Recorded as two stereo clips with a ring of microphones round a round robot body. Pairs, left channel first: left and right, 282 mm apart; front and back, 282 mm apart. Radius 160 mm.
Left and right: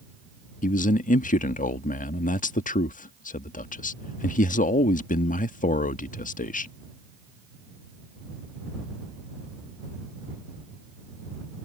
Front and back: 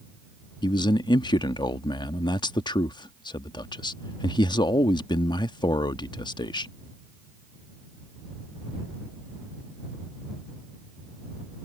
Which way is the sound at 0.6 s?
60° left.